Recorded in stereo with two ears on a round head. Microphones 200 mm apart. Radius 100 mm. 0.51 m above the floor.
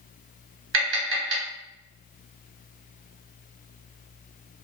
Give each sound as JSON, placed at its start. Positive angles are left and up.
{"t": 0.7, "sound": "tapping", "side_deg": -65, "distance_m": 1.7}